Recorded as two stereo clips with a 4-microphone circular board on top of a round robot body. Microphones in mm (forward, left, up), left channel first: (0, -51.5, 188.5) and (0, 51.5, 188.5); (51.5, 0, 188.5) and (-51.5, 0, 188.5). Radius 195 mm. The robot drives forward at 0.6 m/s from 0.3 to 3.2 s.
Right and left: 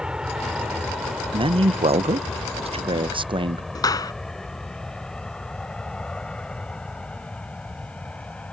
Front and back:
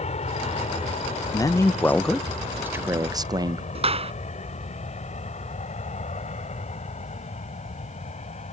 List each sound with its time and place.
0.0 s an aircraft: 5° left; by 8.5 s 10° right
1.3 s a man speaking: 55° left; by 3.6 s 125° left
3.8 s a clap: 150° right